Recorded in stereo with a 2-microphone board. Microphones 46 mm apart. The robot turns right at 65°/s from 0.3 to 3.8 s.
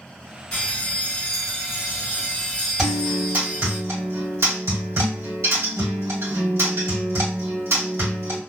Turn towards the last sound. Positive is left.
turn(degrees=-110)